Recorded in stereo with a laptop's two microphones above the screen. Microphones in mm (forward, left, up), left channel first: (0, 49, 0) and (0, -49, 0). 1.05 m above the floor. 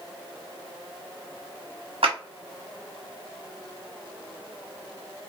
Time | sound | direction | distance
2.0 | a clap | 75° right (ahead or behind) | 1.0 m